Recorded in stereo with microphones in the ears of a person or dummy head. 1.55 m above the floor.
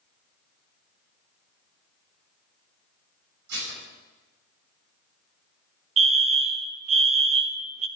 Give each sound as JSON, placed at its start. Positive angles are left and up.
{"t": 3.5, "sound": "dishes clattering", "side_deg": -65, "distance_m": 9.5}
{"t": 6.0, "sound": "a fire alarm", "side_deg": -30, "distance_m": 0.6}